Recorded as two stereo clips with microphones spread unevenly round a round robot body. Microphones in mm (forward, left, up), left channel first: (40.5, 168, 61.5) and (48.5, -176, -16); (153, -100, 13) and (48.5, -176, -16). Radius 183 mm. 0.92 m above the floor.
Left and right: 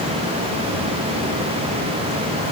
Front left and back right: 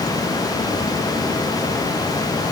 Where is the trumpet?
No trumpet in this recording.